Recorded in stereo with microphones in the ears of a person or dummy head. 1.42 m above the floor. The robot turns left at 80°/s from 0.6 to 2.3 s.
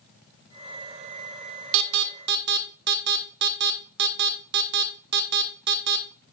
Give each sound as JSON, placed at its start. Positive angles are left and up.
{"t": 1.7, "sound": "an alarm", "side_deg": -75, "distance_m": 0.9}